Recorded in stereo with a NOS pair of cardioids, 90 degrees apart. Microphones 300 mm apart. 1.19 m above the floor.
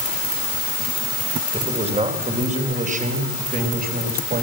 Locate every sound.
1.5 s a man speaking: 20° right, 4 m; by 4.4 s 30° right, 5.5 m